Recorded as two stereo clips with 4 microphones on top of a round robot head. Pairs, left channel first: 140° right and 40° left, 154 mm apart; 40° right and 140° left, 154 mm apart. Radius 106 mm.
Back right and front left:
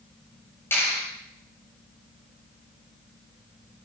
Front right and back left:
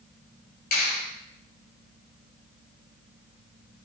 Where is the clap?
60° right, 7.5 m.